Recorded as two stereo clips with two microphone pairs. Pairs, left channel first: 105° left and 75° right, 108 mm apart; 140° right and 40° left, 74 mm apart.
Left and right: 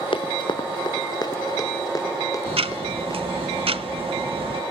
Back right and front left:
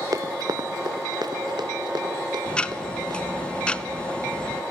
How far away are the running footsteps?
About 0.8 m.